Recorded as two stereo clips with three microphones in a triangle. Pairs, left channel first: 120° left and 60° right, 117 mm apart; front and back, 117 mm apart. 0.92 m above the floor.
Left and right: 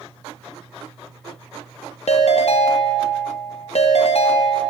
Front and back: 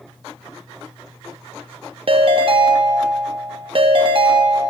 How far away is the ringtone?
About 0.6 m.